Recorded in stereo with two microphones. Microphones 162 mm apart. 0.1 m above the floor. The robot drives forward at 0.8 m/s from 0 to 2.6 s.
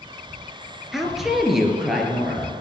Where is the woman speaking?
Centre (ahead or behind), 1.8 m.